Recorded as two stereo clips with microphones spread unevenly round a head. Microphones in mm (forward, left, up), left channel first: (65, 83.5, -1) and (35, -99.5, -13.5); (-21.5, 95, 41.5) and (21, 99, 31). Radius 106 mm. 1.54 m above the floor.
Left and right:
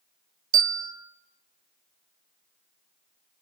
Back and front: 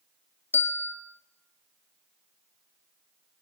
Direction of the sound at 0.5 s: 145° right.